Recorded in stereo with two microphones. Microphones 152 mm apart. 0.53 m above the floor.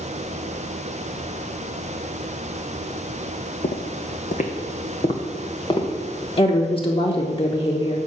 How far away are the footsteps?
About 1.0 m.